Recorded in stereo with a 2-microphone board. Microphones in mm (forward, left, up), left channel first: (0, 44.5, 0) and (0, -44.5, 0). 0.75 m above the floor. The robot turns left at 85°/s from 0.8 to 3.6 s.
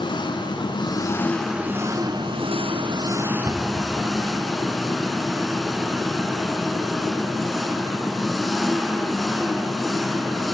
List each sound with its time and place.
0.0 s an engine running: 55° left, 2.5 m; by 10.5 s straight behind, 2.5 m
3.5 s a cupboard door: 45° right (ahead or behind), 2.5 m; by 3.8 s 35° right (ahead or behind), 2.5 m